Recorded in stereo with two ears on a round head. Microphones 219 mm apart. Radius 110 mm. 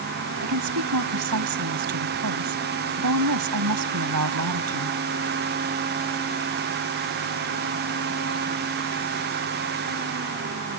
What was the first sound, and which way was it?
A woman speaking, 75° right (ahead or behind).